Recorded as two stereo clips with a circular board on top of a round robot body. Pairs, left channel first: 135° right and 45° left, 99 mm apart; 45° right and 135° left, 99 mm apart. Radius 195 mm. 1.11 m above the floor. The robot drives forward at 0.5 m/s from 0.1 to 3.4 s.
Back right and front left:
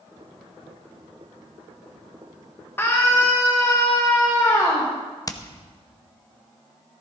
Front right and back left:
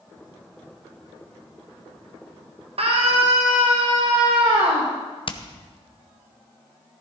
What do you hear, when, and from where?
2.8 s a scream: 155° left, 1.7 m; by 4.9 s 160° left, 1.9 m
5.3 s hammering: 80° right, 1.0 m